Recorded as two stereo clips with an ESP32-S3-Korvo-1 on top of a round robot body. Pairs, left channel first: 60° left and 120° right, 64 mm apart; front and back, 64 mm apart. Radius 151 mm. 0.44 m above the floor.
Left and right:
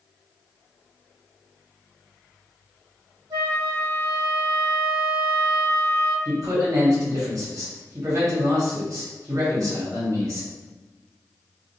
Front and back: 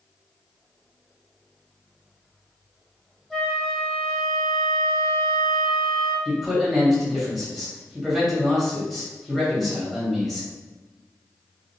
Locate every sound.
3.3 s a flute: 85° right, 0.8 m
6.2 s a man speaking: 85° right, 1.9 m